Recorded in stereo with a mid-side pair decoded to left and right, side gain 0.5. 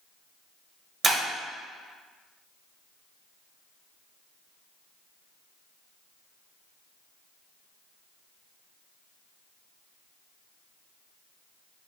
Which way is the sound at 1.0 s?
35° right.